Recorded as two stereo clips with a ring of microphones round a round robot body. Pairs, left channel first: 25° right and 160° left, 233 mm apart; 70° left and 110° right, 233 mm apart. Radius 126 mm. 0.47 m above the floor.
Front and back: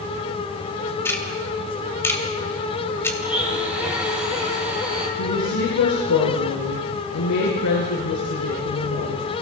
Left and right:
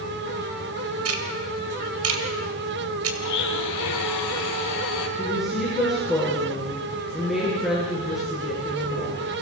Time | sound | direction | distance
1.1 | ticking | 100° right | 2.5 m
3.2 | a blender | 75° left | 3.5 m
5.2 | a woman speaking | 25° right | 8 m